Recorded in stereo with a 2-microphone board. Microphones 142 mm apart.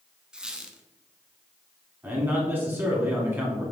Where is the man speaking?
15° right (ahead or behind), 1.2 m.